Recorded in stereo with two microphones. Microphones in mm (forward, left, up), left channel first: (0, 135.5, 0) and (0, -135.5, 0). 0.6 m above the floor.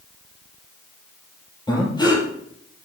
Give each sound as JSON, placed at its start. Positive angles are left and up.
{"t": 1.7, "sound": "breathing", "side_deg": 15, "distance_m": 3.0}